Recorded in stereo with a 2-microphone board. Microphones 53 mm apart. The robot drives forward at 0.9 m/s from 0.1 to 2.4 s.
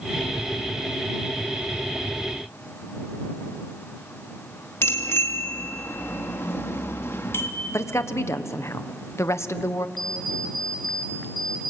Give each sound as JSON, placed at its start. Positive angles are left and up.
{"t": 4.8, "sound": "a bicycle bell", "side_deg": 50, "distance_m": 2.0}
{"t": 7.7, "sound": "a woman speaking", "side_deg": 60, "distance_m": 1.1}
{"t": 10.0, "sound": "an alarm clock", "side_deg": 5, "distance_m": 4.0}